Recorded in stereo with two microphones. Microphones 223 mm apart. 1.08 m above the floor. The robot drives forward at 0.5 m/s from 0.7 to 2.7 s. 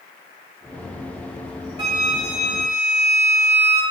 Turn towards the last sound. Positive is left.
turn(degrees=50)  # may be behind; listen again after turning